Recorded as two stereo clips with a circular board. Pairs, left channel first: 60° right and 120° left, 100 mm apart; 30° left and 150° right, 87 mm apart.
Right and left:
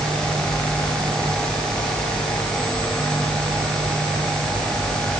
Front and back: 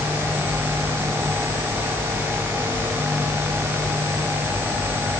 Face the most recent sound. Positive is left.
No sound to turn to.